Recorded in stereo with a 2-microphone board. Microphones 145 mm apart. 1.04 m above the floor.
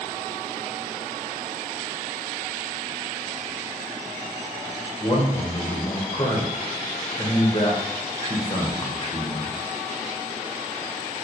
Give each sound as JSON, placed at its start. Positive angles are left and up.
{"t": 5.0, "sound": "a man speaking", "side_deg": 40, "distance_m": 0.8}